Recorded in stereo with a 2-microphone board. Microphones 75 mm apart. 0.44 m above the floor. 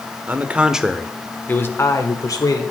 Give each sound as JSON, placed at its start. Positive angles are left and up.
{"t": 0.3, "sound": "a man speaking", "side_deg": -25, "distance_m": 1.0}